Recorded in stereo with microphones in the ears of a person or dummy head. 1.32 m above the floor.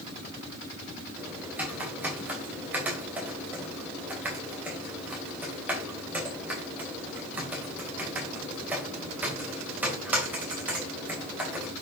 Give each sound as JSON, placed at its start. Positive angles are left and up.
{"t": 1.2, "sound": "typing on a keyboard", "side_deg": -5, "distance_m": 2.5}